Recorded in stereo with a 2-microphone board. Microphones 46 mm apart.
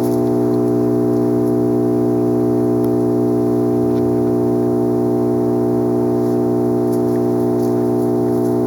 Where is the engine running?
5° left (ahead or behind).